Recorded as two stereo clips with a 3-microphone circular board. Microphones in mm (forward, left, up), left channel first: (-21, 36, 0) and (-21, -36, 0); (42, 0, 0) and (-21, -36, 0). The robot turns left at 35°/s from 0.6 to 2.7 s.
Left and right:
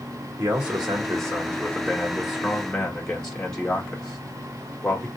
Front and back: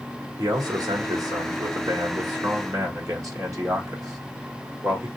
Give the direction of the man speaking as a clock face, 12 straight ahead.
4 o'clock.